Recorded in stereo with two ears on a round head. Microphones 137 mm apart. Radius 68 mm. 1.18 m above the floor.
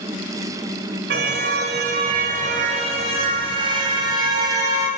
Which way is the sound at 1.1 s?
75° right (ahead or behind).